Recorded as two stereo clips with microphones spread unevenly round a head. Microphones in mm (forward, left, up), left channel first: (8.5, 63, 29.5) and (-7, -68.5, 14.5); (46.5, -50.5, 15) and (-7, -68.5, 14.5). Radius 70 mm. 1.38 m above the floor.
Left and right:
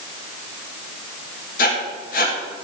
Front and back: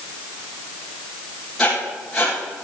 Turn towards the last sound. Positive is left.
turn(degrees=105)